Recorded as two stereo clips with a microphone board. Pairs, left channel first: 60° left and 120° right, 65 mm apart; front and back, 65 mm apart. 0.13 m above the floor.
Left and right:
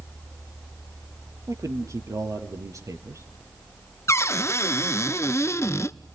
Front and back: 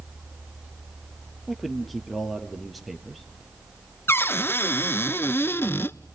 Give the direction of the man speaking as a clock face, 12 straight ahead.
3 o'clock.